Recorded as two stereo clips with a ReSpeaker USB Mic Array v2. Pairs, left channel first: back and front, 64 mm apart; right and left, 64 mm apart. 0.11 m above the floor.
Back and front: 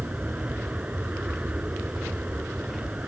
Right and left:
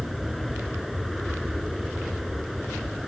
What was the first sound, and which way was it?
An aircraft, straight ahead.